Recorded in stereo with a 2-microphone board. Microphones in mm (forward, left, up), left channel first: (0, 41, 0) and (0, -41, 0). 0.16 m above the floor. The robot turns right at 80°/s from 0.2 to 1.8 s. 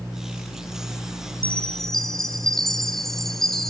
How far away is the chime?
About 1.6 m.